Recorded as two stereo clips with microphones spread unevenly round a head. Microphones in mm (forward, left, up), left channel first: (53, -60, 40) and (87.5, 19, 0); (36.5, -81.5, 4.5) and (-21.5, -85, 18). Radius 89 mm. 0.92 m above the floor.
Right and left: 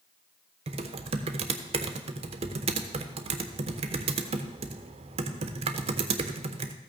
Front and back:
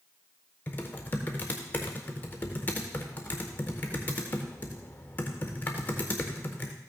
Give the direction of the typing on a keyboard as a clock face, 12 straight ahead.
10 o'clock.